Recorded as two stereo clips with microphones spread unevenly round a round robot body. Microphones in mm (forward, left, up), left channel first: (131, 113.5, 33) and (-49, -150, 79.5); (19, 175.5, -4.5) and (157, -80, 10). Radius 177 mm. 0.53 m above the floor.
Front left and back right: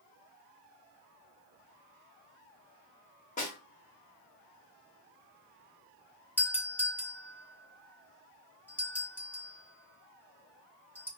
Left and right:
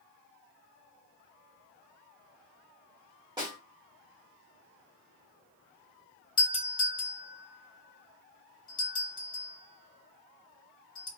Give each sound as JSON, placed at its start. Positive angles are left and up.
{"t": 3.4, "sound": "a snare drum", "azimuth_deg": 10, "distance_m": 1.3}
{"t": 6.4, "sound": "a doorbell", "azimuth_deg": 100, "distance_m": 1.1}